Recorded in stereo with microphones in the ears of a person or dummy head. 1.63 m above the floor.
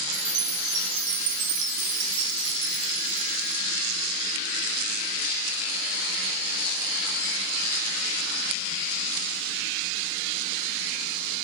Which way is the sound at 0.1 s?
60° right (ahead or behind).